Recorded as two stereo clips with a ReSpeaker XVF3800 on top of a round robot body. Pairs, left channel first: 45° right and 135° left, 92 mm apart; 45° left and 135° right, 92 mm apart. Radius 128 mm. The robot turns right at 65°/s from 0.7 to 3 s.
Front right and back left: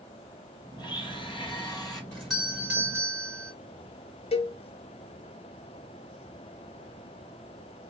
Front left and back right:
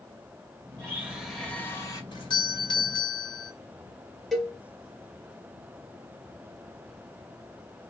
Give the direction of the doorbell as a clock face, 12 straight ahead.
11 o'clock.